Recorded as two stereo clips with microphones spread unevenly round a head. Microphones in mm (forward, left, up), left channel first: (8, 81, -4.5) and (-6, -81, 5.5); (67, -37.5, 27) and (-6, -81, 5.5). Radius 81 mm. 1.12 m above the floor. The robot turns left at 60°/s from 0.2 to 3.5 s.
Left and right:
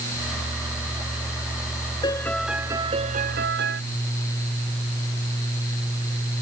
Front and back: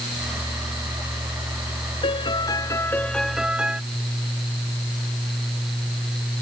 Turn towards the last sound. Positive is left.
turn(degrees=-70)